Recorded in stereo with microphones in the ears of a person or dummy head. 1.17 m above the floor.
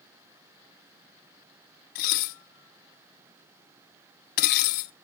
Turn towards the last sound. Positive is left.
turn(degrees=50)  # may be behind; listen again after turning